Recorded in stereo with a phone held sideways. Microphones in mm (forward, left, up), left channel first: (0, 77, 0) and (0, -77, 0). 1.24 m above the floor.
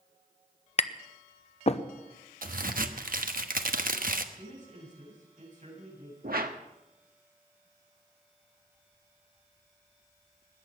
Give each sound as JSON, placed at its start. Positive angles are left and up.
{"t": 0.8, "sound": "tapping", "side_deg": 45, "distance_m": 0.8}
{"t": 2.4, "sound": "a crack", "side_deg": -65, "distance_m": 1.0}
{"t": 4.3, "sound": "a man speaking", "side_deg": -50, "distance_m": 8.0}
{"t": 6.2, "sound": "a whoosh", "side_deg": -70, "distance_m": 1.4}